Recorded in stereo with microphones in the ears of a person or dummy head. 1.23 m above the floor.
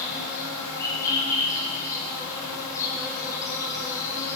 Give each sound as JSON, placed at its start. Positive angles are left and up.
{"t": 0.0, "sound": "an insect", "side_deg": 20, "distance_m": 4.5}